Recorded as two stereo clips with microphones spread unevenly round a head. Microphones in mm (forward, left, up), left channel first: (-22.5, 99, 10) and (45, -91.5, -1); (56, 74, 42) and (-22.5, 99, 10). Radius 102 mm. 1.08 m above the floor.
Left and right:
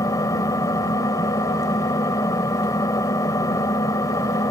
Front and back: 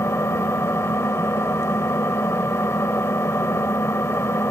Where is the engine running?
35° left.